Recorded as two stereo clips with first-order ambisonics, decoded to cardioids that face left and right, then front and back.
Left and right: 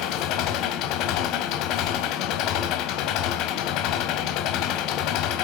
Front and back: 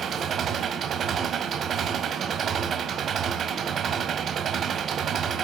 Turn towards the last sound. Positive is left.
turn(degrees=120)